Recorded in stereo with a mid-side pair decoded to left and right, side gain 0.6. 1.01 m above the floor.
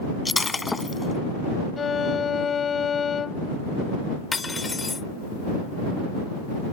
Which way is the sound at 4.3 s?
20° left.